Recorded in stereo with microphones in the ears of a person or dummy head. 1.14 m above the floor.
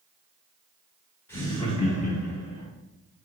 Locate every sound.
1.3 s laughter: 15° left (ahead or behind), 1.1 m; by 2.7 s 75° left (ahead or behind), 1.3 m